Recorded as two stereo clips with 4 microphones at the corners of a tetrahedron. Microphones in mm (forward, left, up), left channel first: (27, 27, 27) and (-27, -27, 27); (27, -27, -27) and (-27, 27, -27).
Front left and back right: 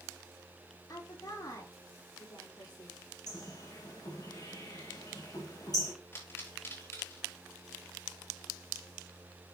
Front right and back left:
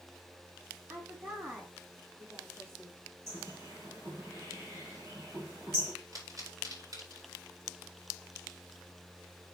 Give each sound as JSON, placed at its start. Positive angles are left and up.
{"t": 0.9, "sound": "a woman speaking", "azimuth_deg": 80, "distance_m": 5.0}
{"t": 3.3, "sound": "a bird", "azimuth_deg": 80, "distance_m": 4.0}
{"t": 6.1, "sound": "a pop", "azimuth_deg": 100, "distance_m": 4.0}